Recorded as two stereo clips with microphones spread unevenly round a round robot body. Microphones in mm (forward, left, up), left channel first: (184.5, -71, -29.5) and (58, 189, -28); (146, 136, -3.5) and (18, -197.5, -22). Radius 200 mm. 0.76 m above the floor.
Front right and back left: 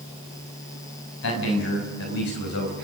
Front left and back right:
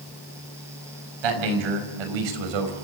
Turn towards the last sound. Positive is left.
turn(degrees=-120)